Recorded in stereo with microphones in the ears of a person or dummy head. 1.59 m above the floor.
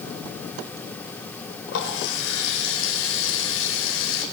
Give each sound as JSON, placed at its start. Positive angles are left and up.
{"t": 1.7, "sound": "a running tap", "side_deg": 70, "distance_m": 4.5}